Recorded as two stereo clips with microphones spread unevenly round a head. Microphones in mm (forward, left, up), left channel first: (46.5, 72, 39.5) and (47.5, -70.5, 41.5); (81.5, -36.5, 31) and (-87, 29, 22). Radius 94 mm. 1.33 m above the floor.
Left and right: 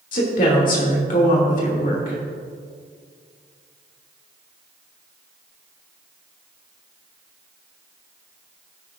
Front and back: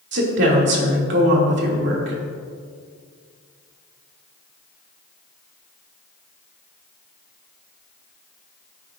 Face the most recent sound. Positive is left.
turn(degrees=130)